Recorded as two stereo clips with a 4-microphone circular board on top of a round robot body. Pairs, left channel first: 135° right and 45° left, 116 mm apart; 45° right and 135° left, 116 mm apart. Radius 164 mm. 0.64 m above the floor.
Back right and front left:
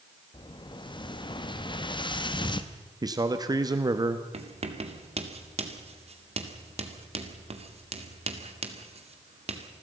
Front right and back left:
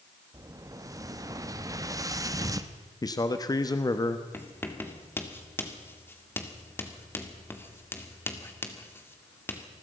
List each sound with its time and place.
0.3 s an explosion: 170° right, 1.4 m
3.0 s a man speaking: straight ahead, 1.4 m
4.3 s writing: 25° left, 2.5 m